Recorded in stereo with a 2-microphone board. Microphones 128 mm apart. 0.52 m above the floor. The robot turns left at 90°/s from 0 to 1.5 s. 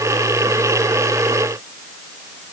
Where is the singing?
I don't hear singing.